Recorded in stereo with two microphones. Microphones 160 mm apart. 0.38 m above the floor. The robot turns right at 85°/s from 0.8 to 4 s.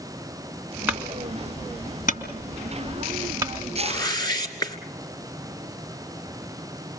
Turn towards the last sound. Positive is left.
turn(degrees=25)  # may be behind; listen again after turning